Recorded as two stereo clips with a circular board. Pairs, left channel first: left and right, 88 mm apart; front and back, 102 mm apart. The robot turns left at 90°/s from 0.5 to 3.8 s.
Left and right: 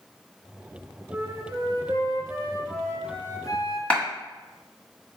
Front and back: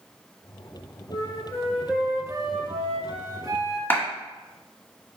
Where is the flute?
20° right, 0.8 m; by 3.8 s 95° left, 0.8 m.